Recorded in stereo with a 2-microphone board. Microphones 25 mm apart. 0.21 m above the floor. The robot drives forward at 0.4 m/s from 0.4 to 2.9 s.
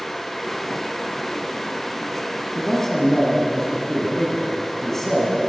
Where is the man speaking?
10° left (ahead or behind), 1.9 m.